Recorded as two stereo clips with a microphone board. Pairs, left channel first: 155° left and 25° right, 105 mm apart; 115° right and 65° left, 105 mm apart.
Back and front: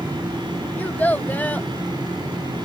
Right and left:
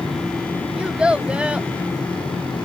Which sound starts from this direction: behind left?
A child speaking, at 0.8 s.